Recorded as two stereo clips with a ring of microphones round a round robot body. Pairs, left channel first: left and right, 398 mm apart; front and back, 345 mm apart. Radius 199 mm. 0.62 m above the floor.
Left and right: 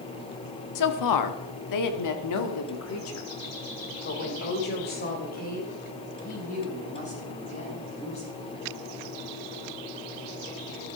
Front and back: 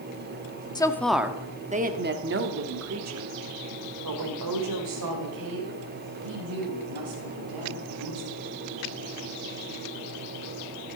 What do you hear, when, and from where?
0.8 s a woman speaking: 75° left, 1.2 m; by 8.4 s 165° left, 5 m